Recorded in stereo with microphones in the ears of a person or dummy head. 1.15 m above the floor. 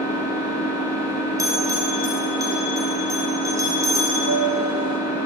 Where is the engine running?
10° left (ahead or behind), 1.7 m.